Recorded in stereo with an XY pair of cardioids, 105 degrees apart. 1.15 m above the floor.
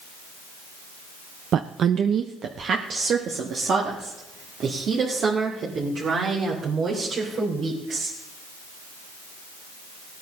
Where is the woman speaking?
60° right, 0.6 m.